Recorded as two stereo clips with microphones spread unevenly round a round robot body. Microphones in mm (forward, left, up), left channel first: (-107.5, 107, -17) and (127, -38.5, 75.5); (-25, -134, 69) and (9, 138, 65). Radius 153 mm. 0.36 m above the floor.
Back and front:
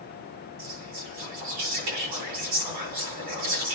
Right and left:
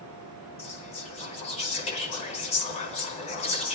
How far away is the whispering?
About 3.5 m.